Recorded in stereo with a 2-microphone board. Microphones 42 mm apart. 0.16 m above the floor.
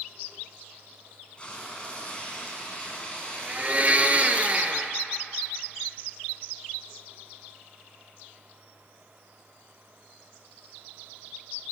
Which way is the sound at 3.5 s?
30° right (ahead or behind).